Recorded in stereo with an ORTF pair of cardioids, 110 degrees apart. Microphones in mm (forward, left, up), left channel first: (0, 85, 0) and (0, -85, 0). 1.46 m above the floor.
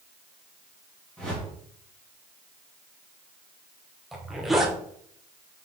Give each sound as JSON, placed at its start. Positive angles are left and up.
{"t": 1.2, "sound": "a whoosh", "azimuth_deg": 5, "distance_m": 2.0}
{"t": 4.1, "sound": "a zipper", "azimuth_deg": 0, "distance_m": 0.9}